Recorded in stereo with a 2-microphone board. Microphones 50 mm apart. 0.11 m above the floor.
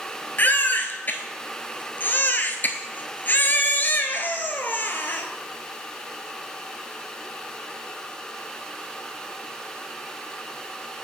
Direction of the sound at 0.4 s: 40° left (ahead or behind).